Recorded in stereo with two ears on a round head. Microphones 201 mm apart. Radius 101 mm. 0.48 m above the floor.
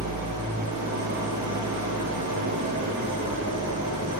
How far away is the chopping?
I don't hear chopping.